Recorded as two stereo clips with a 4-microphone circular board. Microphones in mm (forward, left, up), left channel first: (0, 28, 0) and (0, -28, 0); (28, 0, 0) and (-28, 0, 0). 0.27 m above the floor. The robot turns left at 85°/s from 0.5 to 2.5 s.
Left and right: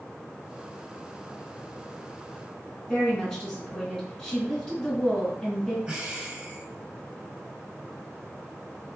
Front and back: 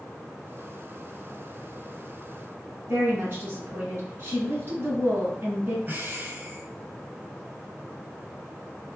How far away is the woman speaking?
About 1.9 m.